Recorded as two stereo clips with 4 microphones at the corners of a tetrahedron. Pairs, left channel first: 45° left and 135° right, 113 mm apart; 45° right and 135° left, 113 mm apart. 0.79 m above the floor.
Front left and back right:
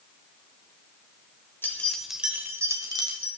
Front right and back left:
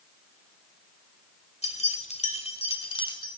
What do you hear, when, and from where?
1.6 s keys jangling: 25° right, 2 m; by 3.3 s 90° right, 2.5 m